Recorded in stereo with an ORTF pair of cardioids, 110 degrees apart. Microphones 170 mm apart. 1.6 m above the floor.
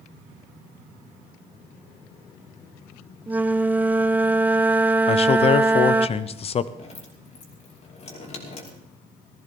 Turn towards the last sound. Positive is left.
turn(degrees=45)